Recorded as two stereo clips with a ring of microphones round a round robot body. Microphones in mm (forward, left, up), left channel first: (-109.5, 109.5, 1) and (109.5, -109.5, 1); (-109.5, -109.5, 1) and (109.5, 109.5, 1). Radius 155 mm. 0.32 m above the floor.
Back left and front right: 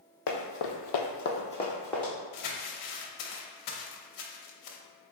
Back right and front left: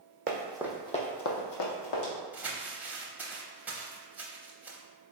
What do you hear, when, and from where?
0.3 s running footsteps: 110° left, 1.0 m; by 2.1 s 135° right, 1.4 m
2.3 s crumpling: 130° left, 0.7 m